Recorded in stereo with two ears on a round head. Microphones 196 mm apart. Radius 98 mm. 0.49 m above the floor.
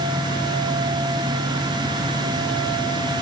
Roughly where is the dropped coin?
I don't hear a dropped coin.